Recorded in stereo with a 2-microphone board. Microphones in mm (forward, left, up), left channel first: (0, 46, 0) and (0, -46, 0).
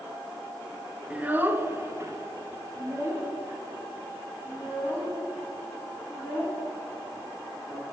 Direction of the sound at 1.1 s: 15° right (ahead or behind).